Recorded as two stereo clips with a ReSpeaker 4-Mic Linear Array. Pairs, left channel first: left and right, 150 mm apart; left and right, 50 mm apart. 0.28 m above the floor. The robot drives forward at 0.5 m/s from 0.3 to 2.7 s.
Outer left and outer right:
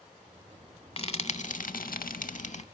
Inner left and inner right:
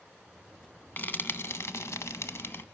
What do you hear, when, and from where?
1.0 s frying: 40° left (ahead or behind), 0.7 m; by 2.6 s 50° left (ahead or behind), 0.6 m